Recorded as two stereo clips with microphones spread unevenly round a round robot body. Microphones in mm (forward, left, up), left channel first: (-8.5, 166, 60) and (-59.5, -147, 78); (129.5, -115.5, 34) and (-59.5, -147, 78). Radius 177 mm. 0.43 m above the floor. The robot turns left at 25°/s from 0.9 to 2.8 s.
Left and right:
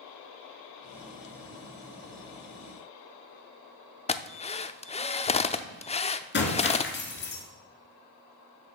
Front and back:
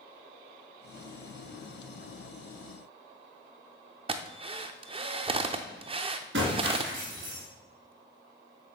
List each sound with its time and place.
4.1 s a drill: 130° left, 0.6 m
6.3 s breaking glass: 135° left, 2.5 m